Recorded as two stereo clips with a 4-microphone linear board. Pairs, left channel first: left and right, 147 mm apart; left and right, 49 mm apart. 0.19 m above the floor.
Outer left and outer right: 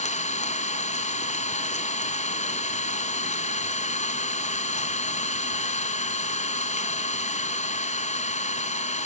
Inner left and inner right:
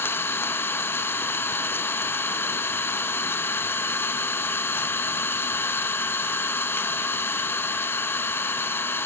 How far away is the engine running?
About 0.9 m.